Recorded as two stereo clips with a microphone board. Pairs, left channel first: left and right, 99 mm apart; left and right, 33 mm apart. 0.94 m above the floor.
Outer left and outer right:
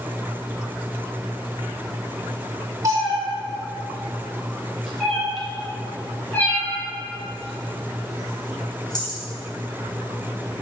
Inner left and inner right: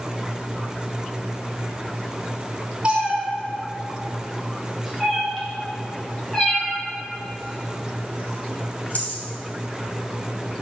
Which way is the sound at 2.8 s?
30° right (ahead or behind).